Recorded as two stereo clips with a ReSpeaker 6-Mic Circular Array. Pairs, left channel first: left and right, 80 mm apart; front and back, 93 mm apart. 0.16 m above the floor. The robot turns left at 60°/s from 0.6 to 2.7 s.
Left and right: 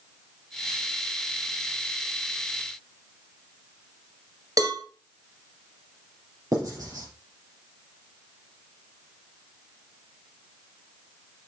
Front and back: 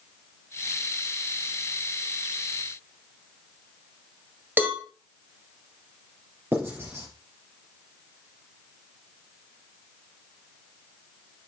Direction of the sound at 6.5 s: 120° right.